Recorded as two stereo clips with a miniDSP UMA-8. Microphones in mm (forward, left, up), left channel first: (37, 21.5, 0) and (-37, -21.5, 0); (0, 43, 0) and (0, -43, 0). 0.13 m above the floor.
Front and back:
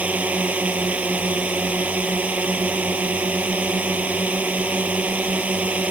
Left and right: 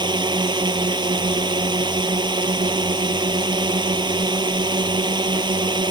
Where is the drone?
80° right.